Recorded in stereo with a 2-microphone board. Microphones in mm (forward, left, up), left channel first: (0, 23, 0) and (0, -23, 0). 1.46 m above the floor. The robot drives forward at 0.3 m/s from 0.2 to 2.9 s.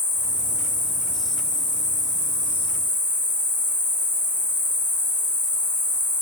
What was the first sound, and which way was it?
An insect, 40° right (ahead or behind).